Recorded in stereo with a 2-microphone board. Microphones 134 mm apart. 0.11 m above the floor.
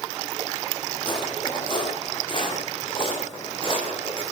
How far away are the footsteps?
About 10 m.